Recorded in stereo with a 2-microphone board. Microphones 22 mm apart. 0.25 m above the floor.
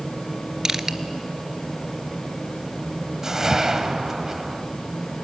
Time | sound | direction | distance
0.7 | crushing | 25° right (ahead or behind) | 0.8 m
3.2 | a whoosh | 25° right (ahead or behind) | 1.3 m